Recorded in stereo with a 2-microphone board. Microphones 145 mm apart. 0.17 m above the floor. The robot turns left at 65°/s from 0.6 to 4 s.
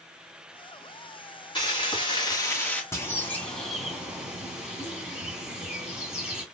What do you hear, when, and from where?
1.6 s frying: 100° left, 1.9 m; by 2.8 s 20° left, 1.9 m
2.9 s a bird: 20° left (ahead or behind), 1.6 m; by 6.5 s 5° right (ahead or behind), 1.6 m